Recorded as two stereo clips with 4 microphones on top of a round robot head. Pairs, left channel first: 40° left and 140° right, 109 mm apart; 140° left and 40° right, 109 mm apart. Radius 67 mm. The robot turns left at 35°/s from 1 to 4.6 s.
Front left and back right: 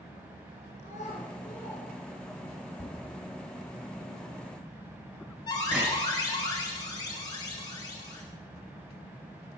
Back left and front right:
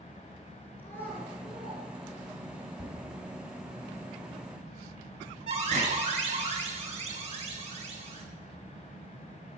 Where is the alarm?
15° right, 6.5 m.